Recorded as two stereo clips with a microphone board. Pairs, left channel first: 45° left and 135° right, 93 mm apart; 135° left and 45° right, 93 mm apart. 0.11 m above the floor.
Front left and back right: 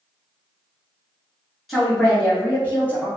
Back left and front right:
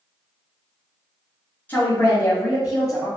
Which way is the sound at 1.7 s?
135° left.